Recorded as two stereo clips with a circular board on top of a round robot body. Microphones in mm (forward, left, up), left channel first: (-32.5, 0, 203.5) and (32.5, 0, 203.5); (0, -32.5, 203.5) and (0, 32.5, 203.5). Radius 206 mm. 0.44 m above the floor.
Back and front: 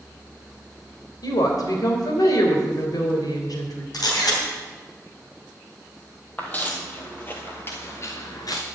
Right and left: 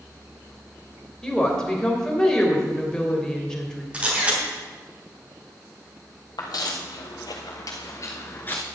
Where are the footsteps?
115° right, 1.6 m; by 8.6 s 160° right, 0.5 m.